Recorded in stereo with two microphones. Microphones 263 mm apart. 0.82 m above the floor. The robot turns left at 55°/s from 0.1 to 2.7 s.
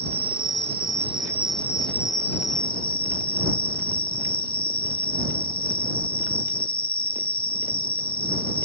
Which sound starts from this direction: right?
An insect, at 0.0 s.